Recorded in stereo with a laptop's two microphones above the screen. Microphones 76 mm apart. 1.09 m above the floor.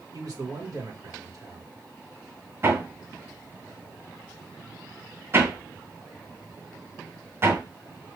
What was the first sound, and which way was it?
A man speaking, 55° right (ahead or behind).